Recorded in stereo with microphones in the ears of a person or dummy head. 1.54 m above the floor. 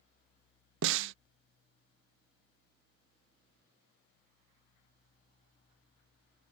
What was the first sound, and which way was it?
A snare drum, 65° right (ahead or behind).